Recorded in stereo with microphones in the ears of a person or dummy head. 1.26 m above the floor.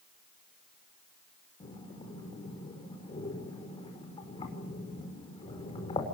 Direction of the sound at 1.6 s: 20° left (ahead or behind).